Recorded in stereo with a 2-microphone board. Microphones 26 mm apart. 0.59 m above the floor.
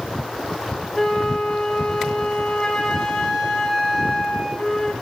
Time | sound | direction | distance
0.9 | a flute | 20° left (ahead or behind) | 3.5 m